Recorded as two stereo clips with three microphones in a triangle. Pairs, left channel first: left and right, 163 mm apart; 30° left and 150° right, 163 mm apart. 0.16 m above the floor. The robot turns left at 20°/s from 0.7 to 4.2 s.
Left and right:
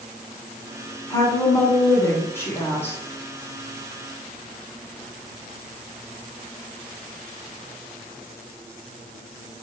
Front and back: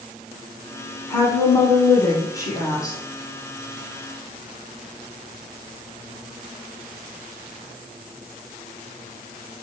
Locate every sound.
1.1 s a woman speaking: 75° left, 1.2 m; by 3.0 s 35° left, 1.2 m